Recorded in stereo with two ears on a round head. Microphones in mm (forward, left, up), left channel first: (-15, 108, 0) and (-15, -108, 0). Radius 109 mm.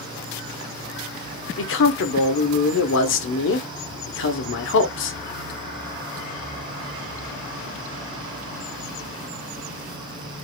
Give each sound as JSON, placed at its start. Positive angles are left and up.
{"t": 1.6, "sound": "a man speaking", "side_deg": 55, "distance_m": 1.0}